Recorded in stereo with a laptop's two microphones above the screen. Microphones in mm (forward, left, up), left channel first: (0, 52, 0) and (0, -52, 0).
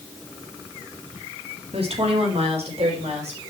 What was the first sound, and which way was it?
A woman speaking, 70° right (ahead or behind).